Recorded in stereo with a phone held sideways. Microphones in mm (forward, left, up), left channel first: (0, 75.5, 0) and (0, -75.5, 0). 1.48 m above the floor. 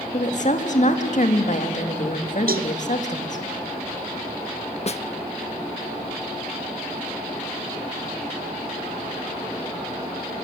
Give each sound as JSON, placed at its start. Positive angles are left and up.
{"t": 0.1, "sound": "a woman speaking", "side_deg": 55, "distance_m": 2.5}
{"t": 2.5, "sound": "a cowbell", "side_deg": -80, "distance_m": 0.8}
{"t": 4.9, "sound": "a snare drum", "side_deg": 45, "distance_m": 0.6}